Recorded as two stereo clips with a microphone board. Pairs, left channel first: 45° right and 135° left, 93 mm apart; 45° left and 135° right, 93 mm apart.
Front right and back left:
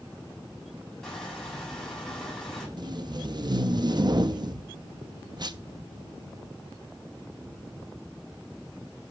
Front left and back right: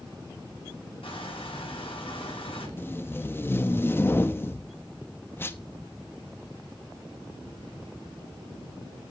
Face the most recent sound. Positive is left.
turn(degrees=105)